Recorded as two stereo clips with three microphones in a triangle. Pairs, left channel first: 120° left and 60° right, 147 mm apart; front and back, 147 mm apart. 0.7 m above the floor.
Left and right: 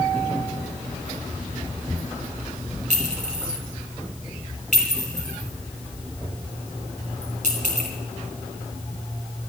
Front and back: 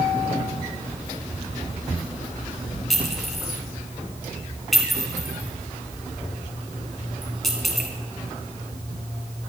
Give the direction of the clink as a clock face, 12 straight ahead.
3 o'clock.